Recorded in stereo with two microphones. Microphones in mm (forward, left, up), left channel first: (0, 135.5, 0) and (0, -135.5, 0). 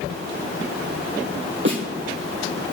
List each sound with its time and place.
1.6 s a snare drum: 45° right (ahead or behind), 3 m